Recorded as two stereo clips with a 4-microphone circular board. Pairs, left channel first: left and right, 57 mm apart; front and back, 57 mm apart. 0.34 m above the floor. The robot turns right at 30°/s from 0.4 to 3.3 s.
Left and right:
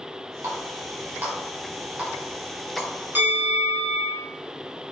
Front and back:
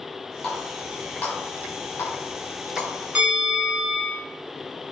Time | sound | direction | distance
0.4 | a running tap | 80° right | 1.4 m
3.1 | a bell | 120° right | 1.0 m